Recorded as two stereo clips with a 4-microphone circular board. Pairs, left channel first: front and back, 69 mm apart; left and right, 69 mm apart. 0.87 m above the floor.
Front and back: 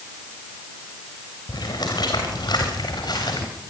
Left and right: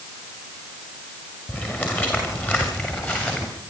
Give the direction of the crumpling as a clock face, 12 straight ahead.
No crumpling in this recording.